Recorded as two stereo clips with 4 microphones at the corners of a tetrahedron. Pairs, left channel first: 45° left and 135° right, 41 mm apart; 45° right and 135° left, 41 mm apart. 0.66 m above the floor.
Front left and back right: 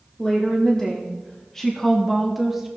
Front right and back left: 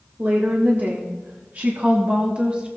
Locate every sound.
0.2 s a woman speaking: 105° left, 1.7 m; by 2.7 s 150° left, 0.9 m